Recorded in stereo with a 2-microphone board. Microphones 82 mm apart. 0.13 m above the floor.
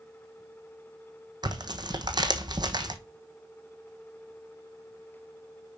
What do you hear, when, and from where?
1.4 s tearing paper: 60° right (ahead or behind), 1.2 m